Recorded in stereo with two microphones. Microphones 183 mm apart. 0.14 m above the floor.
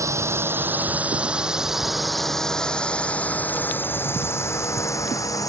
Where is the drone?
15° right (ahead or behind); by 5.5 s 20° left (ahead or behind).